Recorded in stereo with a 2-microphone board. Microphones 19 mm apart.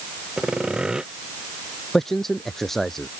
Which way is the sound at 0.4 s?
50° right (ahead or behind).